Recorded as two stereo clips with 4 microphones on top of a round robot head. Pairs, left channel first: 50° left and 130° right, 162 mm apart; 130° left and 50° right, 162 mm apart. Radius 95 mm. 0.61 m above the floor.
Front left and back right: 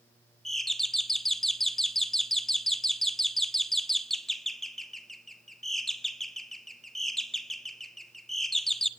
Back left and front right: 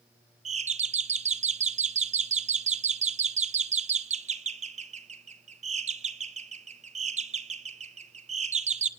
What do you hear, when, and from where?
0.5 s a doorbell: 40° right, 1.4 m